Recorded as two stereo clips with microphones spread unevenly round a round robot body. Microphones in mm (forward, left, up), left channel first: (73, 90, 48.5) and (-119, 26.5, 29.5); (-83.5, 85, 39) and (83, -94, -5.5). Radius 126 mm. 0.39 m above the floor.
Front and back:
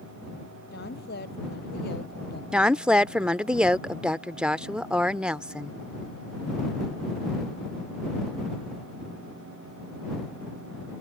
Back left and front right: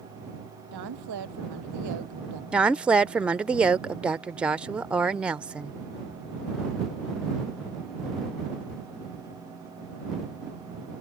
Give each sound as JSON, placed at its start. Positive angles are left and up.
{"t": 0.7, "sound": "a woman speaking", "azimuth_deg": -35}
{"t": 2.5, "sound": "a woman speaking", "azimuth_deg": -95}